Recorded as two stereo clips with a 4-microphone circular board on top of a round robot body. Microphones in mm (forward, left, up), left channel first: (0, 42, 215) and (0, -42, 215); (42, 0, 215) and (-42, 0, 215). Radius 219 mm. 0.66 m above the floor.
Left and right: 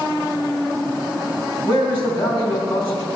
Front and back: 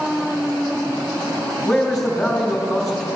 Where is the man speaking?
90° left, 3.5 m.